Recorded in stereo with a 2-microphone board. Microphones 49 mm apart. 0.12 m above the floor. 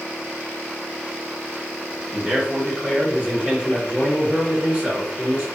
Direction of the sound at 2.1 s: 25° right (ahead or behind).